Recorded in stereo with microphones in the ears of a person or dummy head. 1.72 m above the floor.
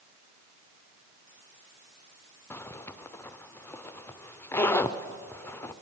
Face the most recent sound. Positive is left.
turn(degrees=10)  # may be behind; listen again after turning